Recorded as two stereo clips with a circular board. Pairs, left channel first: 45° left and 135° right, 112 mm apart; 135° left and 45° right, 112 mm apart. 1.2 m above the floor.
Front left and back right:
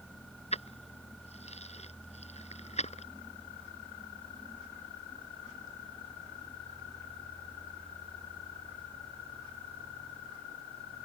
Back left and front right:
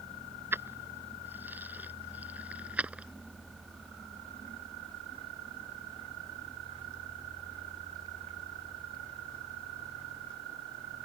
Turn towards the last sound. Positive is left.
turn(degrees=35)